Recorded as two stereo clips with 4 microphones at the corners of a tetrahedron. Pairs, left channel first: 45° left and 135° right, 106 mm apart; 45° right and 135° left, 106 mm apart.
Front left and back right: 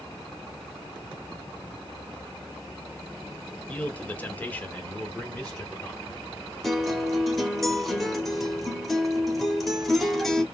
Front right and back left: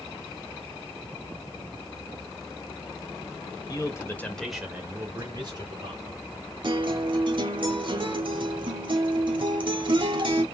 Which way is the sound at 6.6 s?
135° left.